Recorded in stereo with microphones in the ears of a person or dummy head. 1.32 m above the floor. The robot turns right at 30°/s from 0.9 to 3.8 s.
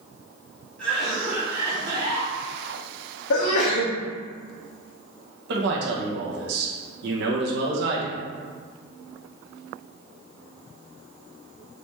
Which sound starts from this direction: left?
A sneeze, at 3.3 s.